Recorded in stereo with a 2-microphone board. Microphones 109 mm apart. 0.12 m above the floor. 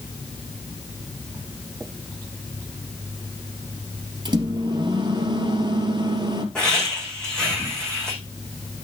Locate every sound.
4.2 s a microwave: 40° right (ahead or behind), 2 m
6.5 s laughter: 5° left (ahead or behind), 7.5 m